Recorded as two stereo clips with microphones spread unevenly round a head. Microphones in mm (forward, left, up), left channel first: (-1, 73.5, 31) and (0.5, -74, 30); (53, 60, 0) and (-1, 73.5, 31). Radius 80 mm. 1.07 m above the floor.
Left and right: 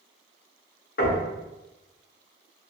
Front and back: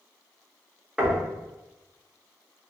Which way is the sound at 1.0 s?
90° left.